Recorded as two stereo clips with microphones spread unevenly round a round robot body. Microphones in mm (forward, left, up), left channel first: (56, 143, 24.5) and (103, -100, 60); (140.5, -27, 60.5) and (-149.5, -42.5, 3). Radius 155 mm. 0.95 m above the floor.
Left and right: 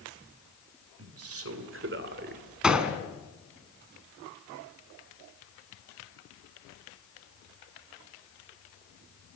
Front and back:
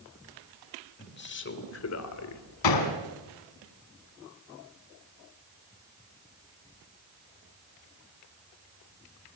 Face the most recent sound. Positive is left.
turn(degrees=5)